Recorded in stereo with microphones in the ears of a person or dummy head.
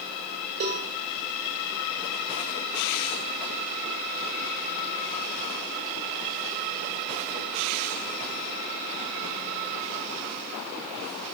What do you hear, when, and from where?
0.6 s a cowbell: 50° right (ahead or behind), 1.5 m